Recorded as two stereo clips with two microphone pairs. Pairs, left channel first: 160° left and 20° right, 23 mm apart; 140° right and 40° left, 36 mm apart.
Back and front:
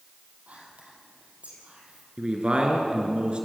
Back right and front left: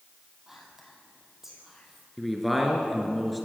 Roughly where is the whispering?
Ahead right.